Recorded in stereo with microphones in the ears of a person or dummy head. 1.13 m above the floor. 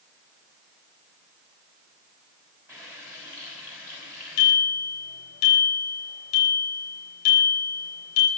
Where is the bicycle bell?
45° left (ahead or behind), 9.5 m.